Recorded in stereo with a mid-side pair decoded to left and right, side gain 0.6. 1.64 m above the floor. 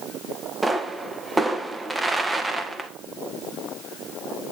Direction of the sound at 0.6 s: 15° right.